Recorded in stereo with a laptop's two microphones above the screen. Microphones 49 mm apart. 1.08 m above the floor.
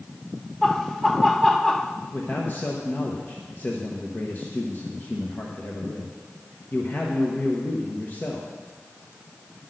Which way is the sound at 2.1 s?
40° left (ahead or behind).